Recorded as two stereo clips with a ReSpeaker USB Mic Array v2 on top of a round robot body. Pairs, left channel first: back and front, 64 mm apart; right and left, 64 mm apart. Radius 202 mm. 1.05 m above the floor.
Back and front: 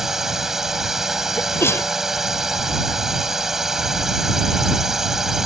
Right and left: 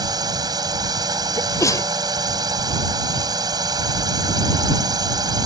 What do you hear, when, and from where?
0.0 s a drone: 85° left
1.4 s a sneeze: 125° right